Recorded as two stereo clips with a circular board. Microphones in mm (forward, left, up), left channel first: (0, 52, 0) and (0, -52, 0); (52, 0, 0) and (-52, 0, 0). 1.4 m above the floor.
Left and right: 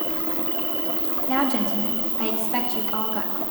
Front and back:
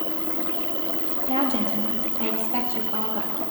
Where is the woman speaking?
175° left, 1.2 m.